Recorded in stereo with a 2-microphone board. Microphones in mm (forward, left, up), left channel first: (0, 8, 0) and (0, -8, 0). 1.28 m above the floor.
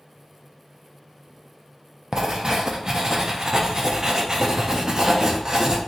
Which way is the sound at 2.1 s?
35° right (ahead or behind).